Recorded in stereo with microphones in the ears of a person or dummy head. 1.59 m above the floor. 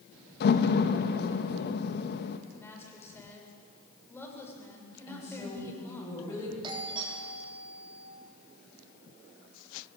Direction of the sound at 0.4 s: 55° left (ahead or behind).